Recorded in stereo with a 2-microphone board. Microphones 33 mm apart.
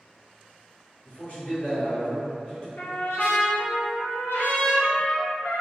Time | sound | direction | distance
1.1 | a man speaking | 55° left (ahead or behind) | 1.5 m
2.8 | a trumpet | 85° left | 0.6 m